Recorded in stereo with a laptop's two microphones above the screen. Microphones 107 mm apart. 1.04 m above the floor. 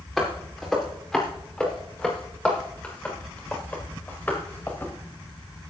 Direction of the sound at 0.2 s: 5° right (ahead or behind).